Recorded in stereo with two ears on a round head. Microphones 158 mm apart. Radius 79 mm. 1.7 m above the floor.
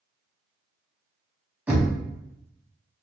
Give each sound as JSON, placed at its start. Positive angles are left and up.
{"t": 1.7, "sound": "knocking", "side_deg": -10, "distance_m": 0.8}